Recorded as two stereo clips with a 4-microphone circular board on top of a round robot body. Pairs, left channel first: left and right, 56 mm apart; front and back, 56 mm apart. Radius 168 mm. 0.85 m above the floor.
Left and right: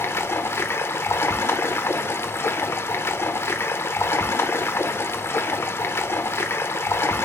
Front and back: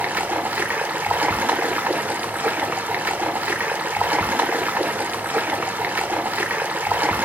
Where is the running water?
120° left, 0.8 m.